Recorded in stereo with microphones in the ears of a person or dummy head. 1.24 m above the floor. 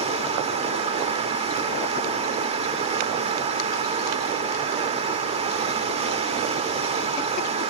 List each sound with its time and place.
0.0 s running water: 25° right (ahead or behind), 1.3 m